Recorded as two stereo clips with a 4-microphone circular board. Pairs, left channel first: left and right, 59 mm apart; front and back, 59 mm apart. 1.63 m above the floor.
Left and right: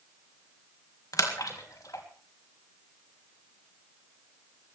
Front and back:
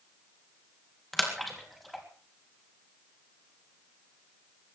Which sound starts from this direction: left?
A splash, at 1.1 s.